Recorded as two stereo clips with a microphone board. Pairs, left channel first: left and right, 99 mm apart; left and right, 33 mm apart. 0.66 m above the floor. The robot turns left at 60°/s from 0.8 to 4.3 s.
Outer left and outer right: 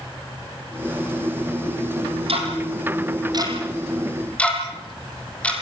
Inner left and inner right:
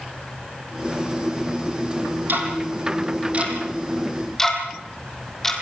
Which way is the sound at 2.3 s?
70° right (ahead or behind).